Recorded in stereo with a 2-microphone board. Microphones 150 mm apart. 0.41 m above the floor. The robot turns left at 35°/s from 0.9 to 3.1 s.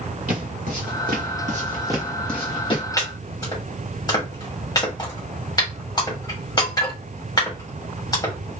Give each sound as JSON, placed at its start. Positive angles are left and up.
{"t": 0.3, "sound": "footsteps", "side_deg": -60, "distance_m": 1.7}
{"t": 3.0, "sound": "chopping", "side_deg": 20, "distance_m": 1.7}